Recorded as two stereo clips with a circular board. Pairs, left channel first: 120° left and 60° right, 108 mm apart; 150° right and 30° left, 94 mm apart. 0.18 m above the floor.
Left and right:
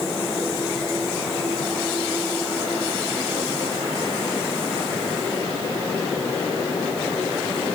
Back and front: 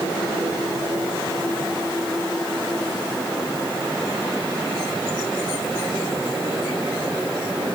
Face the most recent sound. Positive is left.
No sound to turn to.